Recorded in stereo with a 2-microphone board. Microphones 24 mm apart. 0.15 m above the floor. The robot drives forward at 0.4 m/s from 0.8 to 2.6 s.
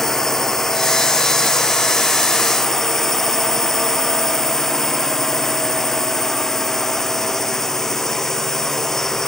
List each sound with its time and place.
0.0 s a drone: 15° left (ahead or behind)